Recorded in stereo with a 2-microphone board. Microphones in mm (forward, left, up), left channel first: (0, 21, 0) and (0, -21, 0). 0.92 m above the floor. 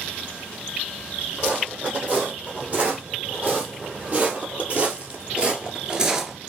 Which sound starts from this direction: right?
Footsteps, at 1.4 s.